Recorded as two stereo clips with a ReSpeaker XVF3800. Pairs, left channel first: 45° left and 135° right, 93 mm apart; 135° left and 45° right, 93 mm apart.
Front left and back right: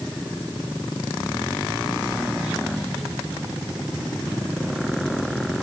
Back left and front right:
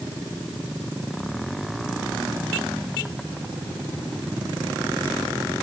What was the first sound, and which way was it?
Only background noise.